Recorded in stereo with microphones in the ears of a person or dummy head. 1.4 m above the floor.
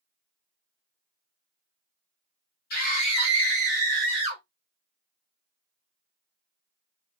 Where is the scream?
50° left (ahead or behind), 1.0 m; by 4.4 s 40° right (ahead or behind), 1.5 m.